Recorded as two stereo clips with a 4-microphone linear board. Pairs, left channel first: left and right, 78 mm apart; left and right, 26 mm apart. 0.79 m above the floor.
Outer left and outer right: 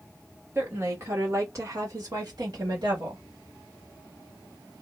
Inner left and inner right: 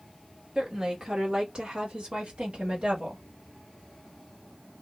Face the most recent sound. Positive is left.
turn(degrees=-55)  # may be behind; listen again after turning